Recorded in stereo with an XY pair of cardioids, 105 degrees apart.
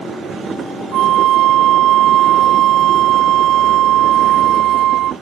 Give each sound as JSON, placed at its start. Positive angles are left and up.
{"t": 0.9, "sound": "a flute", "azimuth_deg": -70, "distance_m": 0.8}